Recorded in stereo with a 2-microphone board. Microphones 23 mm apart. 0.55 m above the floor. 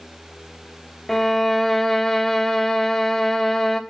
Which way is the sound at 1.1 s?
15° left (ahead or behind).